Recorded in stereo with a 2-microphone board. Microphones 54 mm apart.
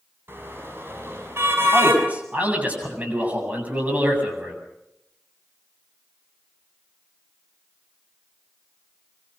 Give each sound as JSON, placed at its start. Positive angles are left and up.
{"t": 0.3, "sound": "a car horn", "side_deg": -45, "distance_m": 6.0}
{"t": 1.7, "sound": "a man speaking", "side_deg": -30, "distance_m": 8.0}